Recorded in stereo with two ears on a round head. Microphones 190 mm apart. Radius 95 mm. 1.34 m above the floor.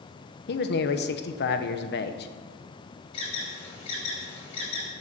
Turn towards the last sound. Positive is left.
turn(degrees=30)  # may be behind; listen again after turning